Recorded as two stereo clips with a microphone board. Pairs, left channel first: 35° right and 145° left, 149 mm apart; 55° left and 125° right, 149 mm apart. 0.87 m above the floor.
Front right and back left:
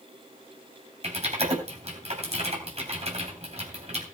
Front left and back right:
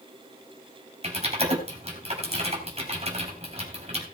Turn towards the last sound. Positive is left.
turn(degrees=-170)